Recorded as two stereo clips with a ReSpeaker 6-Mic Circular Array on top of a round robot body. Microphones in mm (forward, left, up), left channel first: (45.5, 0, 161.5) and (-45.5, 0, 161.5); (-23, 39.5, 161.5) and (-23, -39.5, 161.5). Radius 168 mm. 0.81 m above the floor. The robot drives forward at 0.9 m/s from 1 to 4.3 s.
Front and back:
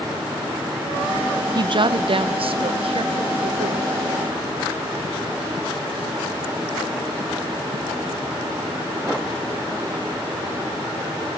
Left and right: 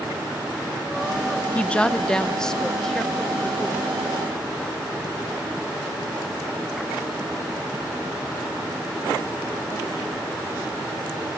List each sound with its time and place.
1.6 s a woman speaking: 160° left, 0.7 m; by 4.5 s 175° left, 3 m